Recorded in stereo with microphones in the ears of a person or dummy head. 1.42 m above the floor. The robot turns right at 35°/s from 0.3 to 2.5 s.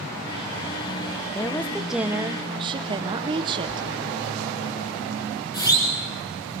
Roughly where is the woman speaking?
Behind.